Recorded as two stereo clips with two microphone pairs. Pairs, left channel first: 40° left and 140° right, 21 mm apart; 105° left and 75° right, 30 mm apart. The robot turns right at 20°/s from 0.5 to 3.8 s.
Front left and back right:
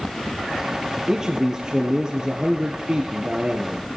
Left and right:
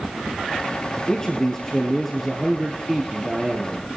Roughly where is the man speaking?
Behind.